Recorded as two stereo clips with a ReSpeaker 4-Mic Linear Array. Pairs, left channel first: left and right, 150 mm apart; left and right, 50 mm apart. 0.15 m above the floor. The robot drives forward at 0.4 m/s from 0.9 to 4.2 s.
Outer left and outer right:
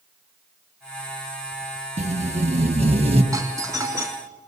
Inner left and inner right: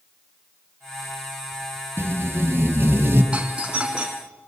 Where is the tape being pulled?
50° right (ahead or behind), 2.5 m; by 3.2 s 45° right (ahead or behind), 3 m.